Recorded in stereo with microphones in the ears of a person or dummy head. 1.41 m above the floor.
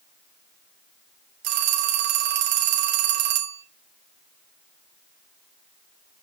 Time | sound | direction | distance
1.4 | a phone ringing | 55° right (ahead or behind) | 1.1 m